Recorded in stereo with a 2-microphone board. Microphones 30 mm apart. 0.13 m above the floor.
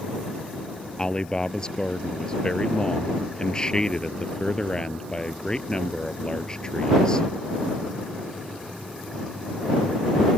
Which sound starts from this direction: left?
A man speaking, at 1.0 s.